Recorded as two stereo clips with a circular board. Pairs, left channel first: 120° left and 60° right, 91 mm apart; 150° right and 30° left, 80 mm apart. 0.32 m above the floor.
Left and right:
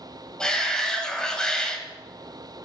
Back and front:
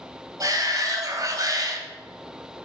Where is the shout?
40° left, 2.0 m.